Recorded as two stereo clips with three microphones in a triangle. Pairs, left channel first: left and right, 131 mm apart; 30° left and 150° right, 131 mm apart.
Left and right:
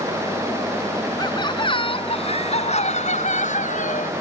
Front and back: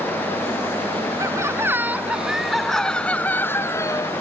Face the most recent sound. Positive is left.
turn(degrees=95)